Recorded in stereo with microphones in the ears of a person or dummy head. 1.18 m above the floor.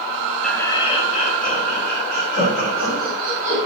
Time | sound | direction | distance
0.4 | laughter | centre (ahead or behind) | 1.0 m